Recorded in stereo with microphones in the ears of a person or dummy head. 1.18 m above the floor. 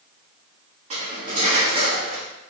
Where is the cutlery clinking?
25° right (ahead or behind), 0.9 m.